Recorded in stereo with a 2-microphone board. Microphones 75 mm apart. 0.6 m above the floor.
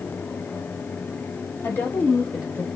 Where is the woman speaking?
35° left (ahead or behind), 1.7 m; by 2.7 s 25° right (ahead or behind), 1.4 m.